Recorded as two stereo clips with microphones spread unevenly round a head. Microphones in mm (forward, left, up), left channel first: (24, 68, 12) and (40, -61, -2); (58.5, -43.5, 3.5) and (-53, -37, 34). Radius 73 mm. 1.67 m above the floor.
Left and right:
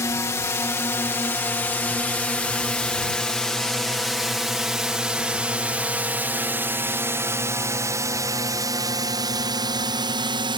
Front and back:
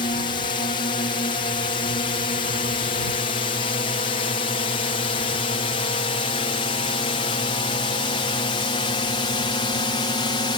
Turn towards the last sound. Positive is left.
turn(degrees=-35)